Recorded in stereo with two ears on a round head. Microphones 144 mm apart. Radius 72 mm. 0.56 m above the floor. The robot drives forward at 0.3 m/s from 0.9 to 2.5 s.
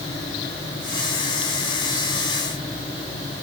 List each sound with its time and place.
Only background noise.